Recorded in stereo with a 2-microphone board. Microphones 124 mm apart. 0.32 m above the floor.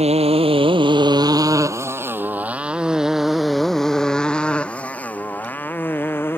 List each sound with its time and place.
0.0 s a motorcycle: 60° right (ahead or behind); by 6.4 s 15° left (ahead or behind)